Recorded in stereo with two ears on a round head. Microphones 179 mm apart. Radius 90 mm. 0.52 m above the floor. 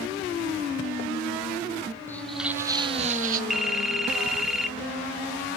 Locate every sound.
2.1 s footsteps: 10° left (ahead or behind), 0.6 m; by 3.4 s 45° right (ahead or behind), 0.8 m
3.5 s a phone ringing: centre (ahead or behind), 0.8 m